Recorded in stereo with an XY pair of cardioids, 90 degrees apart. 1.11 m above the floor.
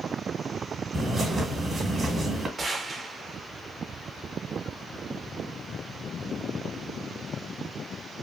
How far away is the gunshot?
About 0.8 m.